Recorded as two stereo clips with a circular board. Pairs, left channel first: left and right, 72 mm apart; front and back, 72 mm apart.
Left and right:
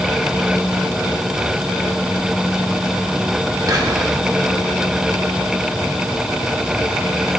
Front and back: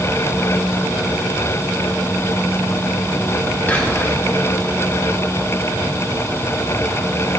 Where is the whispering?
65° right, 1.4 m.